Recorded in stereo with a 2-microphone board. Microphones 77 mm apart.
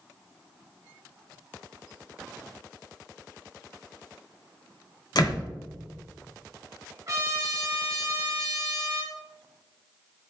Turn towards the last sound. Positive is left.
turn(degrees=-35)  # may be behind; listen again after turning